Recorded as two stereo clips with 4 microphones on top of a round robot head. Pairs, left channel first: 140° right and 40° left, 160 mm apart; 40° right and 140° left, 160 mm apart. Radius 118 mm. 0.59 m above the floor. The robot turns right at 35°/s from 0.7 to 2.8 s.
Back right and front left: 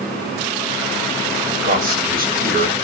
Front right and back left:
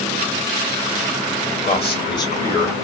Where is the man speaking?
5° left, 1.6 m; by 2.8 s 40° left, 1.6 m.